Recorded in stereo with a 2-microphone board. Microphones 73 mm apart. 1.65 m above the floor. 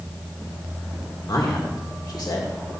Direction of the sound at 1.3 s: 65° left (ahead or behind).